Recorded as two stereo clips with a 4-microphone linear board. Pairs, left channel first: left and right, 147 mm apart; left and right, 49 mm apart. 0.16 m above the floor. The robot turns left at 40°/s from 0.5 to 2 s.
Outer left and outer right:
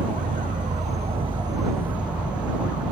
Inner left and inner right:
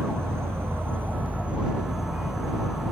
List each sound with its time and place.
0.0 s an insect: 115° right; by 2.9 s 175° right